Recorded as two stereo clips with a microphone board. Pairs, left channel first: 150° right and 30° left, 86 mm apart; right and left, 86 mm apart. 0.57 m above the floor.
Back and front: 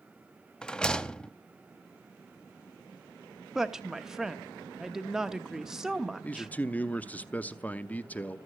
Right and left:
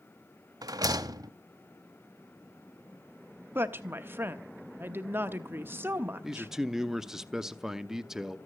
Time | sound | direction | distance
0.6 | a rattle | 130° left | 0.7 m
3.5 | a woman speaking | 105° left | 0.9 m
6.2 | a man speaking | 170° left | 0.7 m